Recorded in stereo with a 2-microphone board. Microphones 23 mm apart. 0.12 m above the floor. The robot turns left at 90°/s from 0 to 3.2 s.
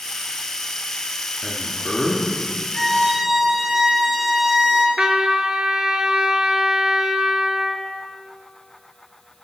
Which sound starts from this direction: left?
A man speaking, at 1.4 s.